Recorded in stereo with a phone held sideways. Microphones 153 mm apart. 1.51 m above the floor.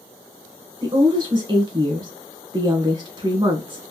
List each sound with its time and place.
0.8 s a woman speaking: 30° right (ahead or behind), 1.4 m